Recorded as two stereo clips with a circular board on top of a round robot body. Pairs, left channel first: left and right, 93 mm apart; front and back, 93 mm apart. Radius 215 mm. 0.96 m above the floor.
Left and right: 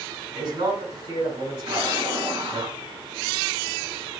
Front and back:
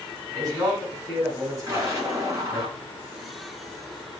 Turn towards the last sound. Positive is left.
turn(degrees=-120)